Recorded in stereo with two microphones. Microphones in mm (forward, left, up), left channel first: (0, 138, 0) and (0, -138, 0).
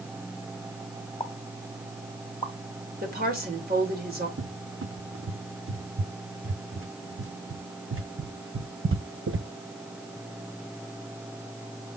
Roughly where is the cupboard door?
Right.